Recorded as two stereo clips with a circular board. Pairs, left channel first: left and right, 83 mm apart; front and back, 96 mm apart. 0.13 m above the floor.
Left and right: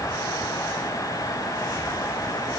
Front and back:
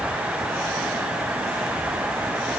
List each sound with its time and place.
Only background noise.